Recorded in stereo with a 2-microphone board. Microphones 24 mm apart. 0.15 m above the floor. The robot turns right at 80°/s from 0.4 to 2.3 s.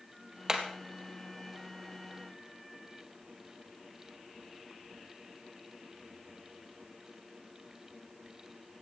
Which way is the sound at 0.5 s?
25° right (ahead or behind).